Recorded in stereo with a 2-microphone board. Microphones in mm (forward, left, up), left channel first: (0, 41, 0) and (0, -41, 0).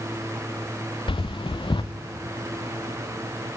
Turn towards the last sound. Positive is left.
turn(degrees=80)